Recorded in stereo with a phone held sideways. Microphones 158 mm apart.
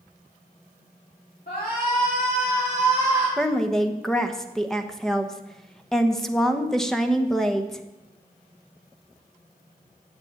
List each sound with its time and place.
1.5 s a shout: 75° left (ahead or behind), 3.5 m; by 3.3 s 55° left (ahead or behind), 4.5 m
3.4 s a woman speaking: 5° left (ahead or behind), 1.0 m